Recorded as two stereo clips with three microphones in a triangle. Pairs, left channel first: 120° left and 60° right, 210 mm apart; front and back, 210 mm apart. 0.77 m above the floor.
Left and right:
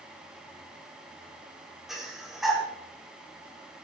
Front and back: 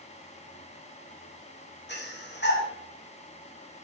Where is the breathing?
30° left, 2.5 m.